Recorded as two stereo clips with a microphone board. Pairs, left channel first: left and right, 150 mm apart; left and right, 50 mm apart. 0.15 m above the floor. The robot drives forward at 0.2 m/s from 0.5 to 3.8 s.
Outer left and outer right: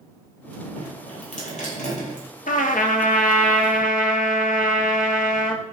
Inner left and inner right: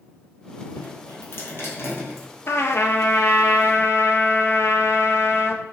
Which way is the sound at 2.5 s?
65° left (ahead or behind).